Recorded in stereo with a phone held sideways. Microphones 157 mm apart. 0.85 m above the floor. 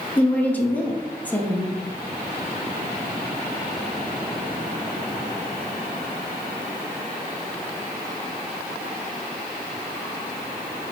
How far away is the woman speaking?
About 1.1 m.